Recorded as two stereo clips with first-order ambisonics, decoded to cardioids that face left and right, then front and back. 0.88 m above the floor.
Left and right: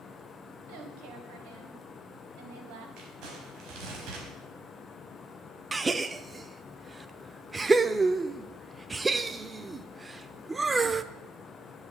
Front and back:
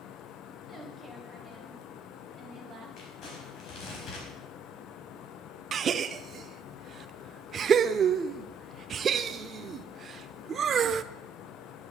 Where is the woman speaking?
90° right, 3.5 m; by 2.9 s 110° right, 3.5 m.